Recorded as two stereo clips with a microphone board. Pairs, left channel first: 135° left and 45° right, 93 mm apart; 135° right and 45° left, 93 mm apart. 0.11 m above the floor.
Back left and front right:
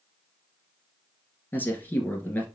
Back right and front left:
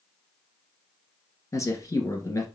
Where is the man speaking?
165° right, 1.5 m.